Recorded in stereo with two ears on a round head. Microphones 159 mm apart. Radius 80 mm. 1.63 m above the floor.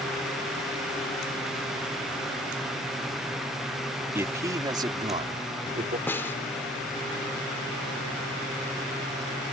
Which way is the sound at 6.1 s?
15° left (ahead or behind).